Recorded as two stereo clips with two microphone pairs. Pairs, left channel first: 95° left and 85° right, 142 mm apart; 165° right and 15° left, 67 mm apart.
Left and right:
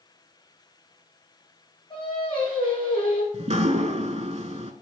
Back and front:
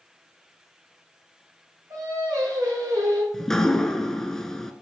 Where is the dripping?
80° right, 0.8 m.